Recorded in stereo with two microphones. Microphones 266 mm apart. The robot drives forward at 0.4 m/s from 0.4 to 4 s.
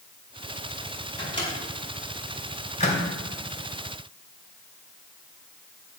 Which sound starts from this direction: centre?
A microwave, at 1.2 s.